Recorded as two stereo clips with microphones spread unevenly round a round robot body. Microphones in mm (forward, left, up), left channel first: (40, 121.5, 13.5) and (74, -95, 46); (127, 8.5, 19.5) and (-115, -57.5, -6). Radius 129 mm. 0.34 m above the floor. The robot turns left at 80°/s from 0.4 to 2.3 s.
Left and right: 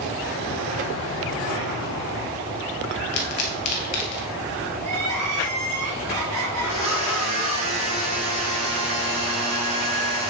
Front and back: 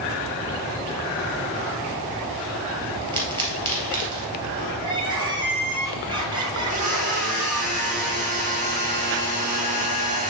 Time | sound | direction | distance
3.1 | a pop | 120° left | 2 m
4.8 | crying | 90° right | 2.5 m
6.6 | a blender | 105° right | 2.5 m